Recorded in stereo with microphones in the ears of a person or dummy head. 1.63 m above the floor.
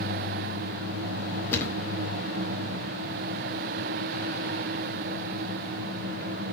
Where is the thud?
15° left (ahead or behind), 1.9 m.